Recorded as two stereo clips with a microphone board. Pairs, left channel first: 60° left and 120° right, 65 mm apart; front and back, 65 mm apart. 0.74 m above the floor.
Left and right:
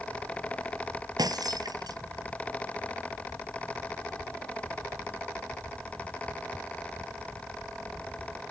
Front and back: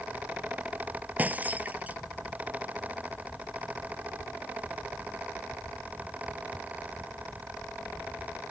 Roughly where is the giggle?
No giggle in this recording.